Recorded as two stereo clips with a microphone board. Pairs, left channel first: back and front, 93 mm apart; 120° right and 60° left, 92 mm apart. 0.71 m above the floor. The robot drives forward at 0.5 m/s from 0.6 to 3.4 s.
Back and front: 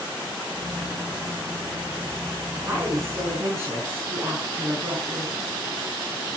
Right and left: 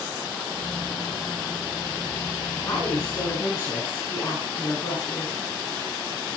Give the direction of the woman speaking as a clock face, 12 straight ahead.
2 o'clock.